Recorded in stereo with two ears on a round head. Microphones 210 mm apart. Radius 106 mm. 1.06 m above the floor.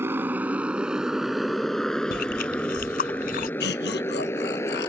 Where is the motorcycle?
10° right (ahead or behind); by 4.9 s 15° left (ahead or behind).